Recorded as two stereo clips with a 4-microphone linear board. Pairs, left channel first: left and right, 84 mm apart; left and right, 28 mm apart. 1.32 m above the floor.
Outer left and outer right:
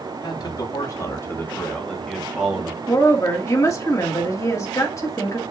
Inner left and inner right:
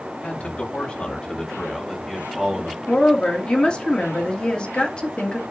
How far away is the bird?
No bird in this recording.